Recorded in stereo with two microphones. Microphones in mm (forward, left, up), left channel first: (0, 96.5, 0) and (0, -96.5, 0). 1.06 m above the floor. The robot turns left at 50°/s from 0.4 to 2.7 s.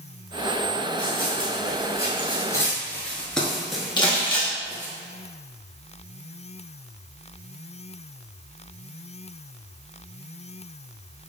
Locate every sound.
1.0 s running footsteps: 50° left (ahead or behind), 1.7 m; by 5.0 s 10° right (ahead or behind), 1.3 m
4.0 s crumpling: 25° left (ahead or behind), 1.0 m